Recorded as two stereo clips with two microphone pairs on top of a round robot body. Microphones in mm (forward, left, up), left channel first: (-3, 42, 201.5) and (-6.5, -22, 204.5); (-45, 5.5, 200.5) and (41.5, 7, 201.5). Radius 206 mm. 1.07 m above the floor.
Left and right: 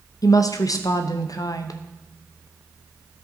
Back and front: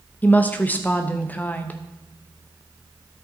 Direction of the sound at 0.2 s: 110° left.